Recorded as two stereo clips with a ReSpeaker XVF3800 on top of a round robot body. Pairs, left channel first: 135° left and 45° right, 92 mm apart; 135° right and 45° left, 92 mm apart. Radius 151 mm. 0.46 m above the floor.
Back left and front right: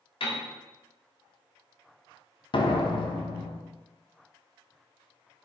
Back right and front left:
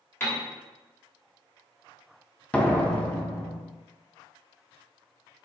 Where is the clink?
I don't hear a clink.